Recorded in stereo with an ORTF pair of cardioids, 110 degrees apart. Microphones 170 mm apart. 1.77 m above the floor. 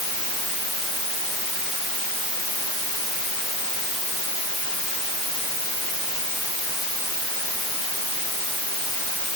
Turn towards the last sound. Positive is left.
No sound to turn to.